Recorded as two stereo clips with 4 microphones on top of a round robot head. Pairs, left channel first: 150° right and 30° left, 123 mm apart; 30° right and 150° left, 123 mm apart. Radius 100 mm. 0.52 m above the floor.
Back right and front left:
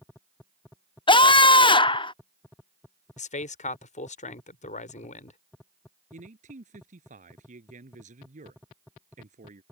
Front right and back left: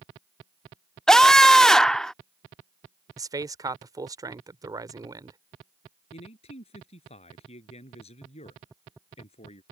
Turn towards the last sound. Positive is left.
turn(degrees=10)